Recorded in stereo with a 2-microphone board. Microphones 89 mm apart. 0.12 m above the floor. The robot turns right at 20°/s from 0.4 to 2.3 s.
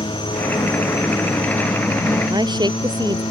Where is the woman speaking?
55° right (ahead or behind).